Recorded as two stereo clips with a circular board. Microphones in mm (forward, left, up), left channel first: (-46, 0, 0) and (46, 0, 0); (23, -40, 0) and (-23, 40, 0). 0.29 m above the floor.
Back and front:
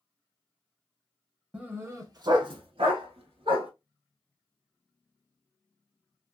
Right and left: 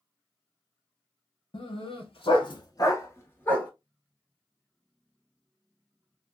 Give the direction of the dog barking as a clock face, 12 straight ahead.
3 o'clock.